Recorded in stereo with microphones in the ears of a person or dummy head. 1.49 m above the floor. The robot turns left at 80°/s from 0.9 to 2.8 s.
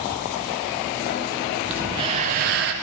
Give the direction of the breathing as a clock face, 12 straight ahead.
12 o'clock.